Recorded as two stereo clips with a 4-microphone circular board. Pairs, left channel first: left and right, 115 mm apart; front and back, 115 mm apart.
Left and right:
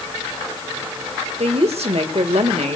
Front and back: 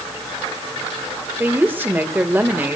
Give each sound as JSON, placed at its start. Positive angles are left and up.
{"t": 1.4, "sound": "a woman speaking", "azimuth_deg": -110, "distance_m": 1.6}